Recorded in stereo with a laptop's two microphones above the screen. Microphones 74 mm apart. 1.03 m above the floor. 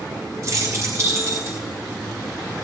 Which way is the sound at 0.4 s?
50° right (ahead or behind).